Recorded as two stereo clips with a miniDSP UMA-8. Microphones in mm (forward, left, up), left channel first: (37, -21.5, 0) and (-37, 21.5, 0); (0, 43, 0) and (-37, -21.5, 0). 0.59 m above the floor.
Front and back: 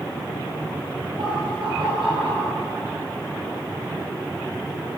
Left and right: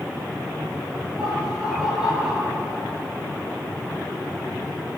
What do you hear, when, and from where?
1.2 s laughter: 160° left, 9.5 m